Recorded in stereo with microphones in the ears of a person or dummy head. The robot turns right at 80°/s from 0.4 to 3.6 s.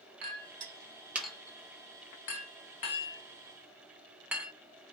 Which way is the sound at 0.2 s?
55° right (ahead or behind).